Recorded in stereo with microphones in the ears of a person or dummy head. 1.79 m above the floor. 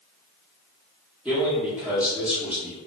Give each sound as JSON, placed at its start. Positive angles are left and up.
{"t": 1.2, "sound": "a man speaking", "side_deg": -10, "distance_m": 0.9}